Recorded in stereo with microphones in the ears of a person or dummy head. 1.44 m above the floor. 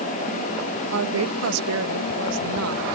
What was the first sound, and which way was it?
A woman speaking, 85° right.